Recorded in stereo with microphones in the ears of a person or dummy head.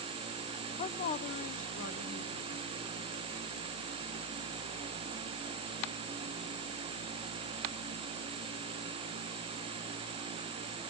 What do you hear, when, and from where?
0.8 s a woman speaking: 35° left (ahead or behind), 0.5 m; by 3.2 s 45° left (ahead or behind), 2.5 m